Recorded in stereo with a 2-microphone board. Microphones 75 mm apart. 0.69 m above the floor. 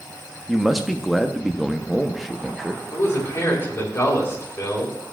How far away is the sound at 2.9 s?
About 2.5 m.